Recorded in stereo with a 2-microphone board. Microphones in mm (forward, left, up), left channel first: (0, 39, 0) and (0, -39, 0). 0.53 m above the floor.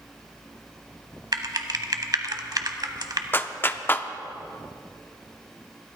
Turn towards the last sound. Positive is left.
turn(degrees=25)  # may be behind; listen again after turning